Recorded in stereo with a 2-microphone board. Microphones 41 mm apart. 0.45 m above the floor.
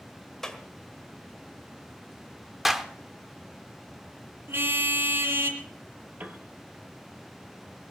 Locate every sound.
0.4 s a clap: 10° left (ahead or behind), 1.7 m
2.6 s a clap: 5° right (ahead or behind), 1.0 m
4.5 s a car horn: 70° right (ahead or behind), 2.5 m
6.2 s a piano: 45° right (ahead or behind), 1.5 m